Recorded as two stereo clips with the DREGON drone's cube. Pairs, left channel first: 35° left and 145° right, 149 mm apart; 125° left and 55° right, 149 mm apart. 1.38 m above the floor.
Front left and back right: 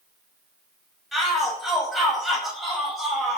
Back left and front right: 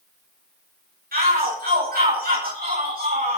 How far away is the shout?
About 9.5 m.